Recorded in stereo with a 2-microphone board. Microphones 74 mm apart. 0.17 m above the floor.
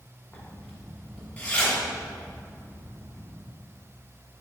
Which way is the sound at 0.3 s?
20° left (ahead or behind).